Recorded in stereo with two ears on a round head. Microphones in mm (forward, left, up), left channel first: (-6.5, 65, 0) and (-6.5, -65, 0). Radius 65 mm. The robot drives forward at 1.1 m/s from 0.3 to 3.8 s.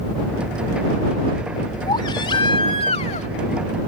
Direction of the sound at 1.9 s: 30° left (ahead or behind).